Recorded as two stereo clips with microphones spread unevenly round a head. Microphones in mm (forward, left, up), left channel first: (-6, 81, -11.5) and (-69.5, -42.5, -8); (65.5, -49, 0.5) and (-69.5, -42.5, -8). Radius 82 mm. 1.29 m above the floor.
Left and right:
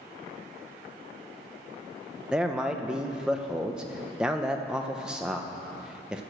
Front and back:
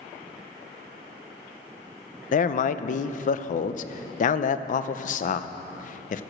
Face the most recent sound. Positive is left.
turn(degrees=-30)